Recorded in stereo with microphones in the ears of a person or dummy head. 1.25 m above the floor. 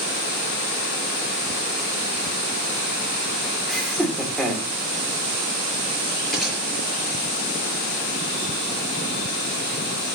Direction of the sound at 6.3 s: Centre (ahead or behind).